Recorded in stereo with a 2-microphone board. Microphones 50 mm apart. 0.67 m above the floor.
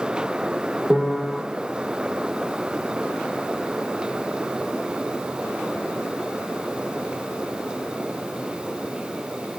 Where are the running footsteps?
I don't hear running footsteps.